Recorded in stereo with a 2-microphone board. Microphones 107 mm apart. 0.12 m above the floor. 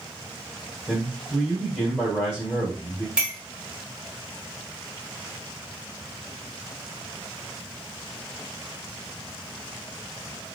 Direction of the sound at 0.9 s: Centre (ahead or behind).